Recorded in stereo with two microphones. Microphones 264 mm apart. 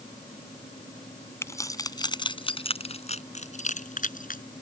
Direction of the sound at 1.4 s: 10° left (ahead or behind).